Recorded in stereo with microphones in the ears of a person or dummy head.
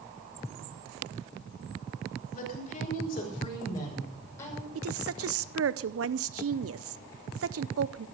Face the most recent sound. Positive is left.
turn(degrees=-70)  # may be behind; listen again after turning